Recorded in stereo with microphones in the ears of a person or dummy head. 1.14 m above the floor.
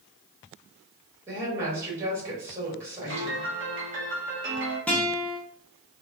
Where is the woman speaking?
15° right (ahead or behind), 1.6 m.